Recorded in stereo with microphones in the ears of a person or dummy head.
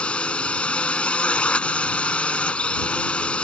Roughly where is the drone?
Centre.